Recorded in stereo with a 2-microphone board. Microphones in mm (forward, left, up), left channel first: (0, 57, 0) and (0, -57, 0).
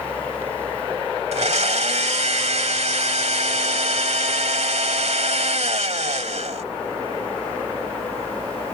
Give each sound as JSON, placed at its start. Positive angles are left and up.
{"t": 1.3, "sound": "a blender", "side_deg": -75}